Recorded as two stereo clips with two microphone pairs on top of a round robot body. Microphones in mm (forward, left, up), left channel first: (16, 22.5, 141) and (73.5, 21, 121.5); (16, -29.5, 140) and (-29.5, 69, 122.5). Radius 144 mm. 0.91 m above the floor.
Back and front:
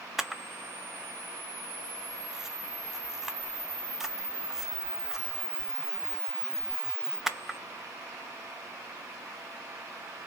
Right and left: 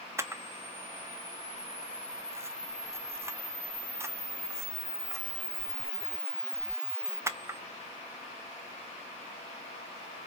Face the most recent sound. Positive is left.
turn(degrees=60)